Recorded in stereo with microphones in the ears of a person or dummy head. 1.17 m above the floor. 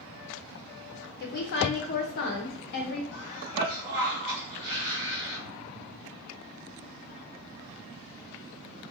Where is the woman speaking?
55° left (ahead or behind), 0.6 m.